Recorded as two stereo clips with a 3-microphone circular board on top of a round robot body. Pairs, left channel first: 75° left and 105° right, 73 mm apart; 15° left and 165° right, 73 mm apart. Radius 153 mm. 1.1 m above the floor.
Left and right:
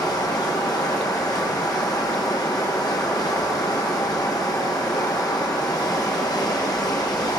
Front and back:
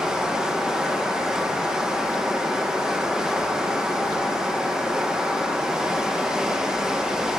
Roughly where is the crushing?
I don't hear crushing.